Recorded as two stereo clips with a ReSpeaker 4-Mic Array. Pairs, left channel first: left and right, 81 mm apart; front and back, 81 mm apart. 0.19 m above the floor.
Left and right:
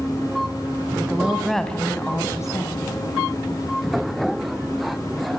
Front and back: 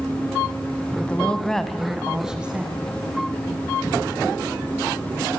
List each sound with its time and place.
1.0 s a woman speaking: 55° right, 1.6 m; by 2.9 s 110° left, 2.5 m